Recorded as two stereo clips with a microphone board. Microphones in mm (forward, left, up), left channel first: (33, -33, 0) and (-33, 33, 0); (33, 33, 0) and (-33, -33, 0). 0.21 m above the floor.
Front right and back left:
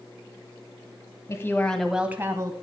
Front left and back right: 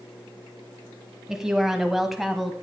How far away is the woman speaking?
About 1.2 m.